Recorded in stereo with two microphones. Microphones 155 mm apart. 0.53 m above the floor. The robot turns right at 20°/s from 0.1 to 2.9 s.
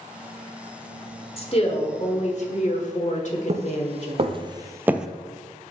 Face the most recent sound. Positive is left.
turn(degrees=0)  # may be behind; listen again after turning